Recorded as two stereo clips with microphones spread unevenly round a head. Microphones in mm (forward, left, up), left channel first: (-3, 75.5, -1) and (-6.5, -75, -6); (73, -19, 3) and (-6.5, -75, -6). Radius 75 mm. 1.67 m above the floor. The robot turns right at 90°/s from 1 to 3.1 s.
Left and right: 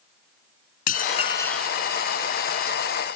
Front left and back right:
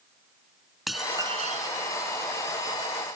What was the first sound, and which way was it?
Dishes clattering, 125° left.